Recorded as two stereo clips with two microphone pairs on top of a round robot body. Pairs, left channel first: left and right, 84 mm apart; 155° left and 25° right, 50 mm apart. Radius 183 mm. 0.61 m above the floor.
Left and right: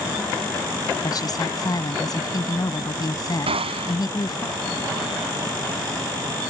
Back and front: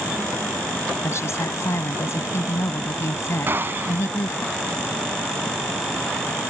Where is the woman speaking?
130° left.